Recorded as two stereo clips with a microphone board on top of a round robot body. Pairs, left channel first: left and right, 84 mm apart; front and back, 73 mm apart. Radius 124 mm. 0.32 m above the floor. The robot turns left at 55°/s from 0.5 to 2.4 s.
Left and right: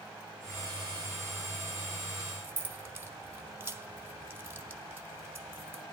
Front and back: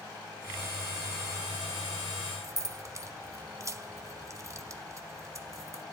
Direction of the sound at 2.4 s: 150° right.